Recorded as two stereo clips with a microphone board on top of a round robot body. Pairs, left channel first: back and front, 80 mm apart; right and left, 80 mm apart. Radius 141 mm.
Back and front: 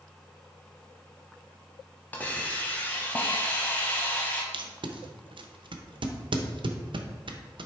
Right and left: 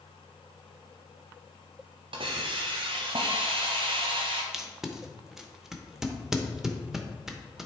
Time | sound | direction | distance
2.1 | a hiss | 110° left | 0.8 m
4.5 | tape being pulled | 5° left | 0.9 m